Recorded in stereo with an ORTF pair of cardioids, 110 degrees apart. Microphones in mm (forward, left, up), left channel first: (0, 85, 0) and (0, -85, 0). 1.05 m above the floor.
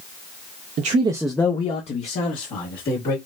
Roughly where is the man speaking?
Ahead right.